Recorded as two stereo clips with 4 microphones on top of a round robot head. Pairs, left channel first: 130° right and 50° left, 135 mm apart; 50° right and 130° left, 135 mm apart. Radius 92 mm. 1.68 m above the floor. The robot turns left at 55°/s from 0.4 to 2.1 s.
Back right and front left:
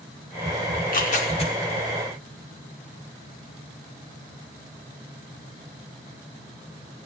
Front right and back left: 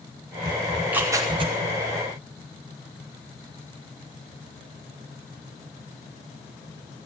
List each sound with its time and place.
0.7 s tearing paper: 140° right, 5.5 m; by 1.5 s 175° left, 5.5 m